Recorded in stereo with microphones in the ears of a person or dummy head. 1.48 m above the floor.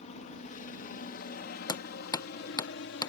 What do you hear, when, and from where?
0.0 s a helicopter: 40° left (ahead or behind); by 3.1 s 65° left (ahead or behind)
1.7 s hammering: 25° left (ahead or behind)